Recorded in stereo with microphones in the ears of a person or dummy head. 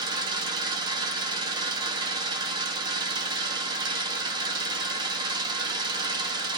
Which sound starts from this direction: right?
An engine running, at 0.0 s.